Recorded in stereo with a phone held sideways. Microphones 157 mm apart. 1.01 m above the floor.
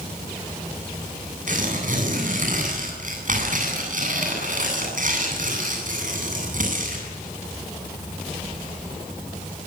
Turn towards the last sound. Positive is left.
turn(degrees=-60)  # may be behind; listen again after turning